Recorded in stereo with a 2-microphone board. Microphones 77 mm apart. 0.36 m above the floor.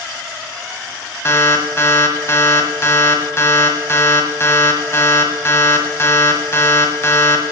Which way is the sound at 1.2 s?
35° left (ahead or behind).